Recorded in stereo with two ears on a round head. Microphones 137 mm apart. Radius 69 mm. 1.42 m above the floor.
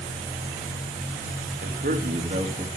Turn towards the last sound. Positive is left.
turn(degrees=-30)  # may be behind; listen again after turning